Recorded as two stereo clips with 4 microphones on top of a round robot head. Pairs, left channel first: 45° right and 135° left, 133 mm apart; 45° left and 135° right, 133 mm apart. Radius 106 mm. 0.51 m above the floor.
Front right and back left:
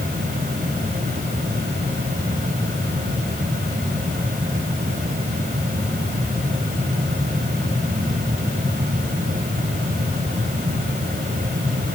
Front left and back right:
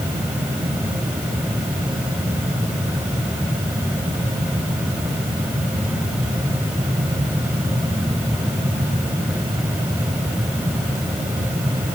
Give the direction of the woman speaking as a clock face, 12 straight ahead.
I don't hear a woman speaking.